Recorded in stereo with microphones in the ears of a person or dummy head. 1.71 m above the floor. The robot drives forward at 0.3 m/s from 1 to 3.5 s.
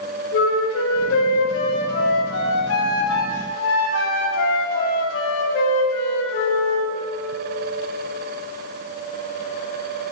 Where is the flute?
70° left (ahead or behind), 2.5 m; by 6.9 s 80° left, 2.5 m.